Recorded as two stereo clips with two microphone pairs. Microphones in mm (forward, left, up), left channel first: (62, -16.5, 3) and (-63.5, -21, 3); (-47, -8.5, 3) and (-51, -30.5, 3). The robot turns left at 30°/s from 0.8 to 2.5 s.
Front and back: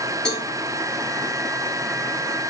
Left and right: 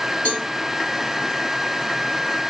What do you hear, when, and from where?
0.2 s a cowbell: 85° left, 5.5 m